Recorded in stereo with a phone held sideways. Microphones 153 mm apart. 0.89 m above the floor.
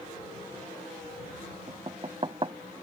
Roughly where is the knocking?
Right.